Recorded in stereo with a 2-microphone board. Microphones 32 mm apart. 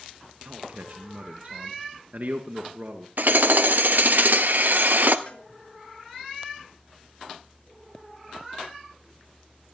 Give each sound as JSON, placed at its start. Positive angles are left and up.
{"t": 0.5, "sound": "a man speaking", "side_deg": -60, "distance_m": 2.0}
{"t": 3.2, "sound": "hammering", "side_deg": -70, "distance_m": 1.0}
{"t": 5.3, "sound": "a cowbell", "side_deg": 55, "distance_m": 2.5}